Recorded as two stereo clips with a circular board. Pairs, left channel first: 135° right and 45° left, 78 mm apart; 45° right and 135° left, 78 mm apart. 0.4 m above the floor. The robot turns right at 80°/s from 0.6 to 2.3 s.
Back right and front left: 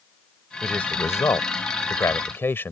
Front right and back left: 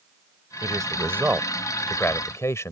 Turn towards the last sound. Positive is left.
turn(degrees=-85)